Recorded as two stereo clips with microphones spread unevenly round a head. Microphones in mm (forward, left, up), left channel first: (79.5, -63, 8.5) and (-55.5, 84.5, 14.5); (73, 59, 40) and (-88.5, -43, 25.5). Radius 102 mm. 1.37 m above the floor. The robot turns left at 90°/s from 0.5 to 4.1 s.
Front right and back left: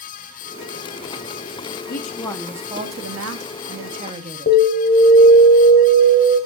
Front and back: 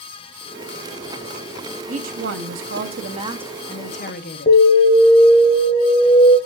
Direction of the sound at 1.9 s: 90° right.